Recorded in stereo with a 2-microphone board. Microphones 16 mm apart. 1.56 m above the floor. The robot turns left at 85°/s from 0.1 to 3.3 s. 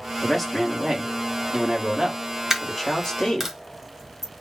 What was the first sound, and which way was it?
A man speaking, 10° left.